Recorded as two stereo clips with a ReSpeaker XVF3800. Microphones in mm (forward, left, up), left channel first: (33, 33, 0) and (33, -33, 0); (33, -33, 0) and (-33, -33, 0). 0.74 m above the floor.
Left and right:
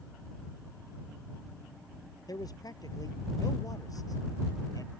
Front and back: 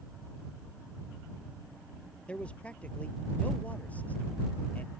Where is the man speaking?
70° left; by 4.9 s 65° left.